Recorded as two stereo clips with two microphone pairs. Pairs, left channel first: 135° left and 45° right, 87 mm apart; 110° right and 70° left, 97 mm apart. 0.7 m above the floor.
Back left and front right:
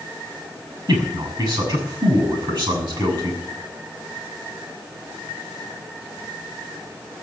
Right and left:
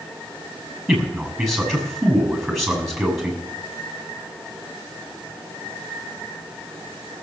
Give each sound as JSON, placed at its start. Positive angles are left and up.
{"t": 0.9, "sound": "a man speaking", "azimuth_deg": -15, "distance_m": 6.5}